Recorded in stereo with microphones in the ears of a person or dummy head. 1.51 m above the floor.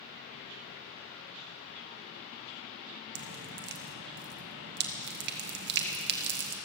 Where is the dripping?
55° right (ahead or behind), 1.2 m.